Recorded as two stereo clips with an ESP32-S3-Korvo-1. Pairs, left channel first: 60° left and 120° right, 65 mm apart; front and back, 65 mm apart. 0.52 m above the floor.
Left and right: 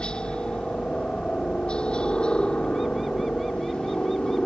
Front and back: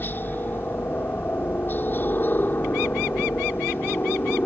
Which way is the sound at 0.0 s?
Straight ahead.